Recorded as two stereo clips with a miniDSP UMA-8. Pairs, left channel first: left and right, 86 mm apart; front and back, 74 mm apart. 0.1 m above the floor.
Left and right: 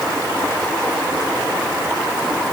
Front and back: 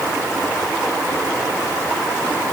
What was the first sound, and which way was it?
Only background noise.